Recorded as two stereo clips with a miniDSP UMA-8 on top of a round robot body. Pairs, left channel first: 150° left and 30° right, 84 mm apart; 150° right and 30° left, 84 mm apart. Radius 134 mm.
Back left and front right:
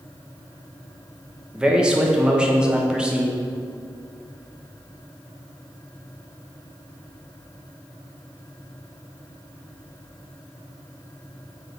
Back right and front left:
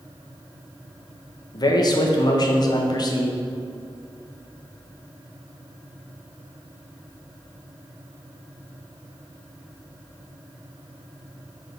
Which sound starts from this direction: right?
A man speaking, at 1.5 s.